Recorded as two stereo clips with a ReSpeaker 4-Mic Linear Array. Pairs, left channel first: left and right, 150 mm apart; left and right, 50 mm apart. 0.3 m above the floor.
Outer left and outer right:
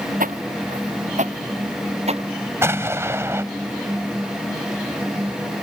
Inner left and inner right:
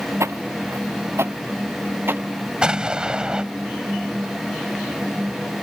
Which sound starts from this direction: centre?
An explosion, at 2.6 s.